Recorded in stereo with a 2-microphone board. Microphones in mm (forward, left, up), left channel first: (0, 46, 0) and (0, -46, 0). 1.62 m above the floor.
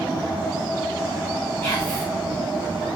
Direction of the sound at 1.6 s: 25° left (ahead or behind).